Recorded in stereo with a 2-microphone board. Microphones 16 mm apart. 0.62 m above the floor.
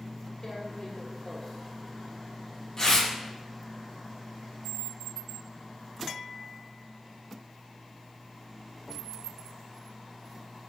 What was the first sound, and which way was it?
Tearing paper, 30° left (ahead or behind).